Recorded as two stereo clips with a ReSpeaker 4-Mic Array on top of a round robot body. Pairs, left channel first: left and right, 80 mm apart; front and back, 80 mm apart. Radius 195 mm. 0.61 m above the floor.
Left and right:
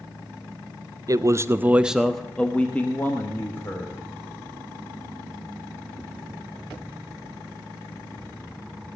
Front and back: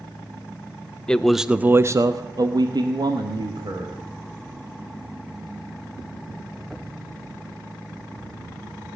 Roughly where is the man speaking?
Right.